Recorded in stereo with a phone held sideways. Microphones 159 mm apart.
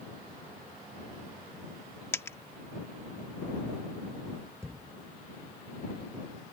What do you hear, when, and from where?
2.1 s a dropped coin: 15° left (ahead or behind)
4.6 s a thud: 15° right (ahead or behind)